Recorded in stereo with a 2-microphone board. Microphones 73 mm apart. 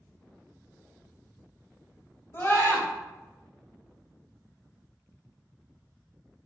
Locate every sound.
2.3 s a scream: 30° left (ahead or behind), 0.6 m